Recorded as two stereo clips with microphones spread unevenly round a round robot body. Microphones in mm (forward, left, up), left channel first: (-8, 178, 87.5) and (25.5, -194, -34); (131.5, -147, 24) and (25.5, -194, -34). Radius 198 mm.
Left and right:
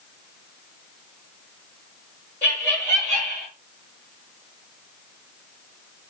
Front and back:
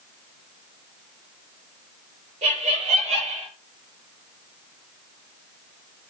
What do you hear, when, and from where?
2.4 s laughter: 175° right, 5.5 m; by 3.5 s 170° right, 5.5 m